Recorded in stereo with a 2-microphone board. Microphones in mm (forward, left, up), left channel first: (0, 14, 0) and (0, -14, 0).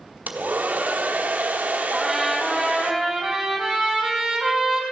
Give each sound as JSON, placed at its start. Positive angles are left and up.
{"t": 0.3, "sound": "a hair dryer", "side_deg": -75, "distance_m": 1.2}
{"t": 1.9, "sound": "a trumpet", "side_deg": 0, "distance_m": 3.5}